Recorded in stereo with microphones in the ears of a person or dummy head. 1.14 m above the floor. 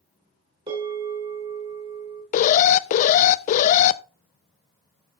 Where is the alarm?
45° left (ahead or behind), 0.5 m.